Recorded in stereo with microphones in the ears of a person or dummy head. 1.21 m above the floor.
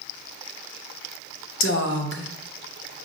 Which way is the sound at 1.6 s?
55° left (ahead or behind).